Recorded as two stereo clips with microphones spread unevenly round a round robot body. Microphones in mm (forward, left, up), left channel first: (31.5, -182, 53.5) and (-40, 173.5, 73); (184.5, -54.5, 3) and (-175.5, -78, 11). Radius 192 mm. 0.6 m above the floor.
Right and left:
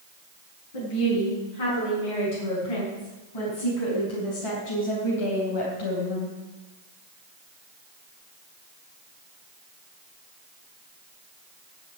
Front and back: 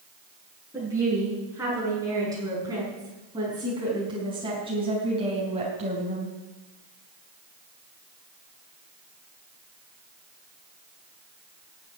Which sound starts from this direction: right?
A woman speaking, at 0.7 s.